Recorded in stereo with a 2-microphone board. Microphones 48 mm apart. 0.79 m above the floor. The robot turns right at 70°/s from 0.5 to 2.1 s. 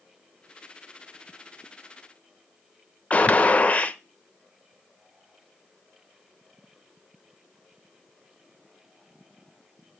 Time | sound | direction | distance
3.1 | a gunshot | 30° left (ahead or behind) | 0.7 m